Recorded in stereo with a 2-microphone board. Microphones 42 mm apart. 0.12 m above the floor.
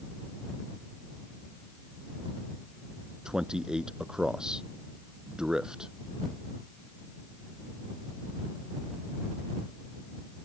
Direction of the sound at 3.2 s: 15° right (ahead or behind).